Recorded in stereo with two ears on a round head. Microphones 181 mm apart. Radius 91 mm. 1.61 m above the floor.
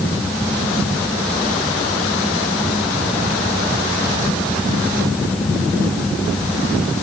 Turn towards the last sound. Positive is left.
No sound to turn to.